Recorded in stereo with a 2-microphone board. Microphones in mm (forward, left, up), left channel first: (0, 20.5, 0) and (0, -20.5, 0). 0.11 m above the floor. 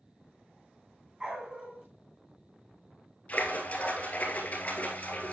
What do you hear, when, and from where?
1.2 s a dog barking: 20° right (ahead or behind), 2 m
3.3 s a splash: 35° left (ahead or behind), 2 m